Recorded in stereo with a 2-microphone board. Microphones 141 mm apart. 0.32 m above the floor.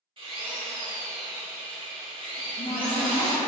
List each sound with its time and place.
0.2 s a drill: 40° right (ahead or behind), 0.9 m
2.4 s a cupboard door: 50° left (ahead or behind), 1.1 m